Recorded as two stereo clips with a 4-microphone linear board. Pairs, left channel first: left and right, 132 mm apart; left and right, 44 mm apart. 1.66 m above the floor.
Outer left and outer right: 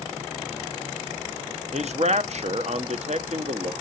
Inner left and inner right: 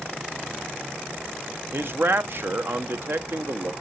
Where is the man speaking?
55° right (ahead or behind), 0.8 m.